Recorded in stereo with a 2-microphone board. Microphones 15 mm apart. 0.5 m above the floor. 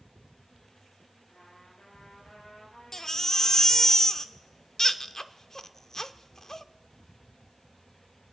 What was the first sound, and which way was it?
A trumpet, 75° left (ahead or behind).